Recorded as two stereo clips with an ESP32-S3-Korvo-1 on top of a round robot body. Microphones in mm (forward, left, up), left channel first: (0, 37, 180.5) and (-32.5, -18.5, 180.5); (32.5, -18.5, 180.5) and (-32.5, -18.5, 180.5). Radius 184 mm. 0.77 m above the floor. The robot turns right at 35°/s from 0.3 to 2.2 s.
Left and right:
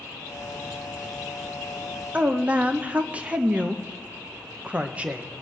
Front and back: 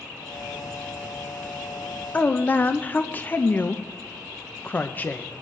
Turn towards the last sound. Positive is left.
turn(degrees=-60)